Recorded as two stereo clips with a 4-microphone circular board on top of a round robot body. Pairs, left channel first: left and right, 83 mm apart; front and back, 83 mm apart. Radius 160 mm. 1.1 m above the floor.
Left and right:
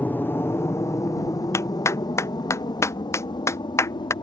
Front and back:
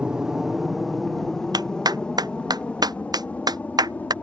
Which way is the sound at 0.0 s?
115° left.